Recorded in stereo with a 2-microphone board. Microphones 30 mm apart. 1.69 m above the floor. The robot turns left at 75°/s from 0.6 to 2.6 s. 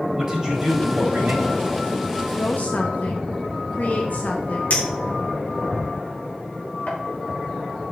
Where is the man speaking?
20° right, 3.5 m; by 1.6 s 95° right, 3.5 m.